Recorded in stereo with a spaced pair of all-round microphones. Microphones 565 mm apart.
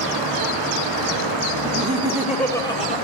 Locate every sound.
1.6 s laughter: 20° right (ahead or behind), 2.5 m; by 3.0 s 15° left (ahead or behind), 3.5 m